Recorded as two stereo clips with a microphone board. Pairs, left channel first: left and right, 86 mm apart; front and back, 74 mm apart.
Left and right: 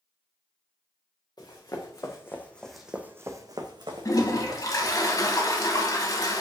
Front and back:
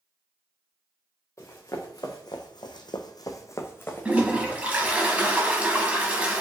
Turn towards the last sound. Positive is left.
turn(degrees=115)